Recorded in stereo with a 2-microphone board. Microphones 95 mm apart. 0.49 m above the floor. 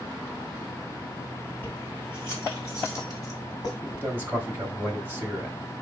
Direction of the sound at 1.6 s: 20° left (ahead or behind).